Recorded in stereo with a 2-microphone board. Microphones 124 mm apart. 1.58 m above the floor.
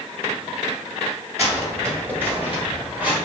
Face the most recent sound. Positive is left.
turn(degrees=-10)  # may be behind; listen again after turning